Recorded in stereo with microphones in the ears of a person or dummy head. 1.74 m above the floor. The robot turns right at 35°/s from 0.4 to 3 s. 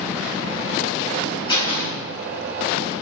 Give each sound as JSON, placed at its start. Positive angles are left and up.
{"t": 1.5, "sound": "a door slam", "side_deg": 30, "distance_m": 3.0}